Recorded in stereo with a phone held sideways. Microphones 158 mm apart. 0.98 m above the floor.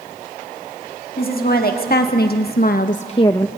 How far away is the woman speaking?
About 2 m.